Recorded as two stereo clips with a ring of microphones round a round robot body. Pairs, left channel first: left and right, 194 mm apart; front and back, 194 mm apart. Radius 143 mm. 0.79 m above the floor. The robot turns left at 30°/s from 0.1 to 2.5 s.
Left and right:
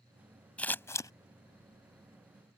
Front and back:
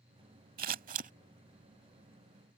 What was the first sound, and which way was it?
Scissors, 170° left.